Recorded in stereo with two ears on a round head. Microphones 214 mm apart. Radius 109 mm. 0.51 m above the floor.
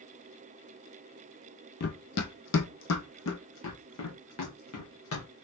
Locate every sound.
1.8 s running footsteps: 40° left (ahead or behind), 0.7 m; by 5.5 s 60° left (ahead or behind), 2.5 m